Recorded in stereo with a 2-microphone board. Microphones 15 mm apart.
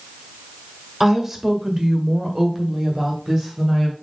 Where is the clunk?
I don't hear a clunk.